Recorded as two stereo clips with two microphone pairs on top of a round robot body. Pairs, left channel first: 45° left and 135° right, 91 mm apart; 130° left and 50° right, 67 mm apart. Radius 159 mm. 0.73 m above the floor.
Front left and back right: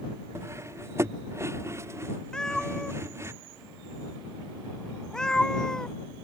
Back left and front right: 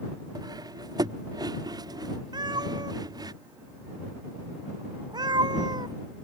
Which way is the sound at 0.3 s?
75° right.